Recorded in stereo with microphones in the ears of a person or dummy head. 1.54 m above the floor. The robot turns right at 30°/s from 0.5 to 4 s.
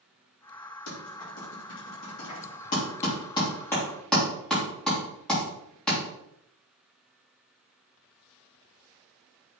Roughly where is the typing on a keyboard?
Left.